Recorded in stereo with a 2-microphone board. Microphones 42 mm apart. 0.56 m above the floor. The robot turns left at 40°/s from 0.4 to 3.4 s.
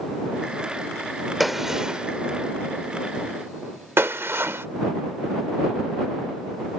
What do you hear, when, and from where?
1.4 s a gunshot: centre (ahead or behind); by 4.7 s 70° right (ahead or behind)